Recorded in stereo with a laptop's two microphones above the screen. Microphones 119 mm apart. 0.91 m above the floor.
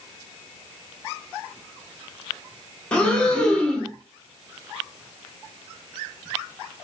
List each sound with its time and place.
2.9 s breathing: 10° left (ahead or behind), 1.0 m